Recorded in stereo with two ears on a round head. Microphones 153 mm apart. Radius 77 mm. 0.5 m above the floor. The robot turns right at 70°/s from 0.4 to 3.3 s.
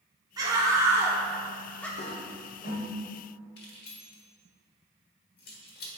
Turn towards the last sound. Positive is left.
turn(degrees=60)  # may be behind; listen again after turning